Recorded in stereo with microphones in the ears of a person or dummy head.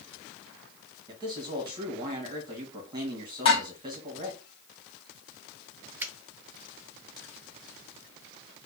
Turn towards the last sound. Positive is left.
turn(degrees=-15)  # may be behind; listen again after turning